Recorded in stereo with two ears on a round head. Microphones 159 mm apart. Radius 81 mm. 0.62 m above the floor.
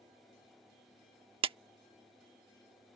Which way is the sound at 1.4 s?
30° right (ahead or behind).